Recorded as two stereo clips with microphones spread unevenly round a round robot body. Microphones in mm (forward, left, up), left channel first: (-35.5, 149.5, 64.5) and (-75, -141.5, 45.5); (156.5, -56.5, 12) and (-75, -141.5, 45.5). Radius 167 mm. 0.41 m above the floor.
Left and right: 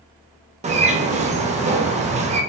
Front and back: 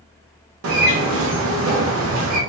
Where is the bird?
155° right, 0.6 m.